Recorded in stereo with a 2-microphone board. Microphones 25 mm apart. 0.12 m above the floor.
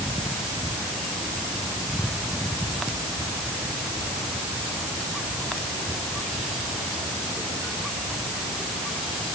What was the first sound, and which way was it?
Only background noise.